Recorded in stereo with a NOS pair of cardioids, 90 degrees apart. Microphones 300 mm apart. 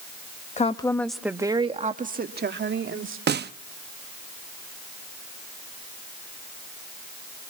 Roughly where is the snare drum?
Ahead right.